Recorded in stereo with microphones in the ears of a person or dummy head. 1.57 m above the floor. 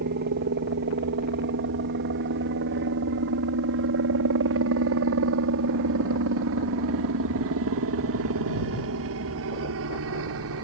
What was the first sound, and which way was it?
A helicopter, 55° right (ahead or behind).